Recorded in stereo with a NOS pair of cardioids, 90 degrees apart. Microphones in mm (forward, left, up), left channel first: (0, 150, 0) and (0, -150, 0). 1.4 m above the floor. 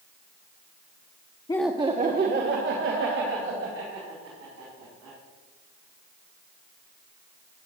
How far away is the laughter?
About 0.7 m.